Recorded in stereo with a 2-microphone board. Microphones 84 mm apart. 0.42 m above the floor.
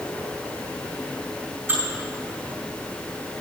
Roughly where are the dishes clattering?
Right.